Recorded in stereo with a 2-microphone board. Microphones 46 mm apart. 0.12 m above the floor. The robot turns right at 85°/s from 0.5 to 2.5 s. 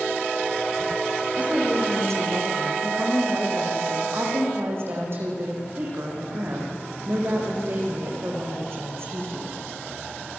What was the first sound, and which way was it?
A woman speaking, 150° right.